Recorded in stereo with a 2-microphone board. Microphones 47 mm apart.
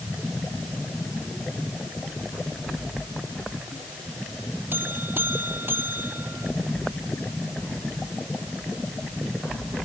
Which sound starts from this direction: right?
A buzzer, at 4.7 s.